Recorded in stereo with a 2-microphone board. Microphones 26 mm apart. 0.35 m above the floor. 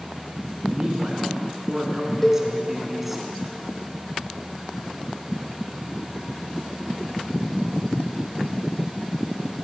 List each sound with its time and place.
0.7 s a man speaking: 35° right (ahead or behind), 3.5 m; by 3.2 s 5° right (ahead or behind), 3 m
2.2 s a cowbell: 10° left (ahead or behind), 1.9 m